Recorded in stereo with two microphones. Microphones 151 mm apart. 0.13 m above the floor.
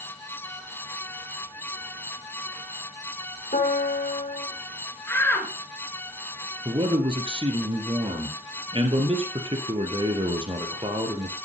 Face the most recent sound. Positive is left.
turn(degrees=-40)  # may be behind; listen again after turning